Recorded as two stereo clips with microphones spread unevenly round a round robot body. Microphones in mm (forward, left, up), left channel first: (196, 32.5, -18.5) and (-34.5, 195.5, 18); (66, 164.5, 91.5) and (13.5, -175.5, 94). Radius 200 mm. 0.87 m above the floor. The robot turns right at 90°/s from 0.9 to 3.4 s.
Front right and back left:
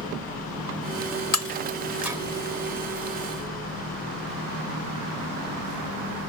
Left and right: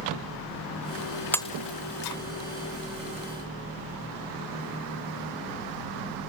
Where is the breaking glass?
5° right; by 2.2 s 70° left.